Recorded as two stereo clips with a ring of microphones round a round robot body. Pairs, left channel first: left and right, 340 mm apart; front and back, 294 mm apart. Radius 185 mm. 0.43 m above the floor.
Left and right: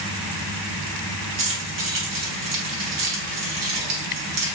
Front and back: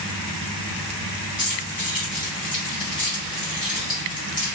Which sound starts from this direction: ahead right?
Keys jangling, at 1.4 s.